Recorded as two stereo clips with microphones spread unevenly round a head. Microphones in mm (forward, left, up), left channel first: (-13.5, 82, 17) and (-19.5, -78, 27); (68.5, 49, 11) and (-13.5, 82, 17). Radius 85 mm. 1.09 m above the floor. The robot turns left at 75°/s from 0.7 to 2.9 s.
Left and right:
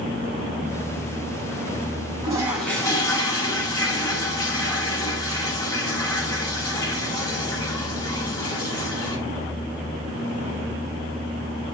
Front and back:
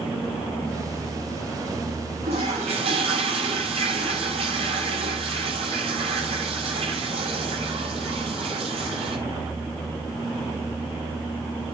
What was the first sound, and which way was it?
A toilet flushing, 155° right.